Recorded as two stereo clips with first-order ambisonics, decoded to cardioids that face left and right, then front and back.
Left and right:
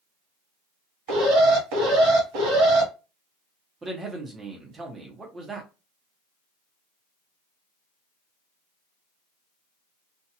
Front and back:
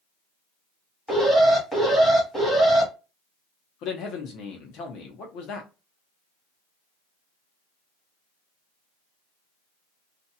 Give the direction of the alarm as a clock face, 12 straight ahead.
3 o'clock.